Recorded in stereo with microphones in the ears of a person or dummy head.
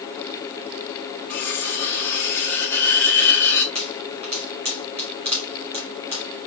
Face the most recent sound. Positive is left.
turn(degrees=-40)  # may be behind; listen again after turning